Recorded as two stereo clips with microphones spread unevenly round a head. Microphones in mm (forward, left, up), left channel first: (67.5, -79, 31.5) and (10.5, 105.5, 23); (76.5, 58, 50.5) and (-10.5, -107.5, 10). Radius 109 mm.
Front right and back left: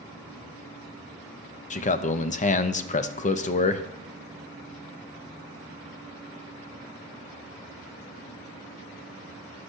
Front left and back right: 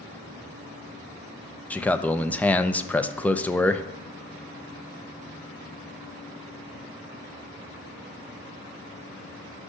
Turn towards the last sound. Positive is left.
turn(degrees=-30)